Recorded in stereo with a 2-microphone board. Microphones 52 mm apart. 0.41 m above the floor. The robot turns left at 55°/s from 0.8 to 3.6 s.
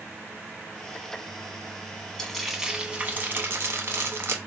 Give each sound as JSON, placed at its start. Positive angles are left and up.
{"t": 2.2, "sound": "frying", "azimuth_deg": 15, "distance_m": 0.5}